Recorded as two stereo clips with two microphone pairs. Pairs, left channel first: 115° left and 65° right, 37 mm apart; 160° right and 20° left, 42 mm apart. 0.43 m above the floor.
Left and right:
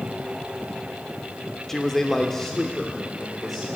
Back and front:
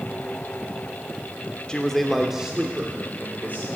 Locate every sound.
1.7 s a man speaking: 175° left, 0.9 m; by 3.6 s 30° left, 1.5 m